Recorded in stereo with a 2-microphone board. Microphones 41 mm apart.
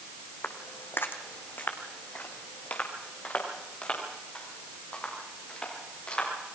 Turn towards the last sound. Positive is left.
turn(degrees=25)  # may be behind; listen again after turning